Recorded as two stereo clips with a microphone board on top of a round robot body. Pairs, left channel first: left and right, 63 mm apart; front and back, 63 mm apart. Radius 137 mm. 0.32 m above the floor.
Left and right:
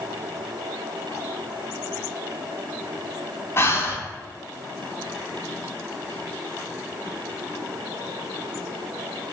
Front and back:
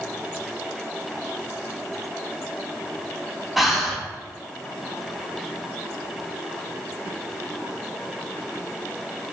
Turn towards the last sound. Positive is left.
turn(degrees=95)